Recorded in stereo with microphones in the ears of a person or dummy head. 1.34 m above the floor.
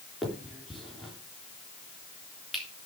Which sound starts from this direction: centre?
A finger snap, at 0.2 s.